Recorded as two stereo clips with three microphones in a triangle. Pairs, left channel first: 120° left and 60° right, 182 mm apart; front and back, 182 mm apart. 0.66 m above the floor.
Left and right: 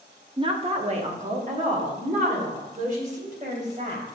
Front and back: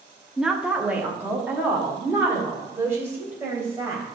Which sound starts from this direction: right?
A woman speaking, at 0.4 s.